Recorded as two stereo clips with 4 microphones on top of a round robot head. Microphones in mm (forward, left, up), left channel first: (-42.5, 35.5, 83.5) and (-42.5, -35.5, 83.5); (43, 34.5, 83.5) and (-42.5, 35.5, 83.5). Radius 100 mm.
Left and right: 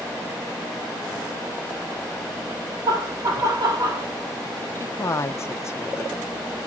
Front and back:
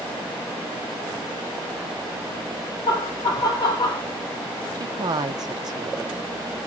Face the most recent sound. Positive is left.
turn(degrees=140)